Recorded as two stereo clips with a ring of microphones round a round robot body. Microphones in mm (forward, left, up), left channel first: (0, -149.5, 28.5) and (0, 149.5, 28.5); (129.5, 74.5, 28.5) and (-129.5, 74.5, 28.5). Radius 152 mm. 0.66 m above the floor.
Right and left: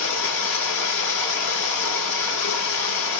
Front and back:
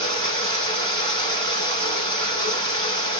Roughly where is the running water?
Behind right.